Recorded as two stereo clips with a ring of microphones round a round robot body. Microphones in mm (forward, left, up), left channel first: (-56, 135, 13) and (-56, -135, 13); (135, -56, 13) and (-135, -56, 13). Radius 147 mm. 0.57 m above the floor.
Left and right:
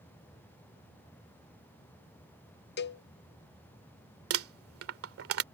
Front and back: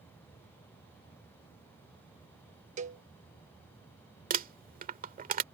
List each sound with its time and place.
2.8 s a cowbell: 125° left
4.3 s crumpling: 120° right